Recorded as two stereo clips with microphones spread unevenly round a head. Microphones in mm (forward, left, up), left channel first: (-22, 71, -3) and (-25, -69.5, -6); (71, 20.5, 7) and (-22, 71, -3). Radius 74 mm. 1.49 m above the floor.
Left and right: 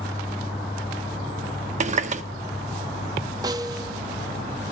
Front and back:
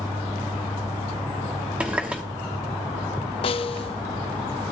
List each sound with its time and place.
1.8 s a running tap: 125° right, 1.1 m
3.4 s a snare drum: 30° right, 0.6 m